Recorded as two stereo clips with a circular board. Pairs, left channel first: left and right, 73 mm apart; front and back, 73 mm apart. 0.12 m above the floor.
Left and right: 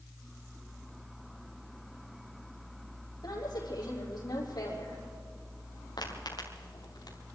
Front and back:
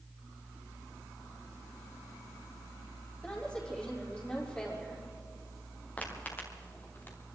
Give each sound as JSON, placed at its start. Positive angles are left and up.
{"t": 3.2, "sound": "a woman speaking", "azimuth_deg": 80, "distance_m": 6.0}
{"t": 6.0, "sound": "footsteps", "azimuth_deg": 70, "distance_m": 4.5}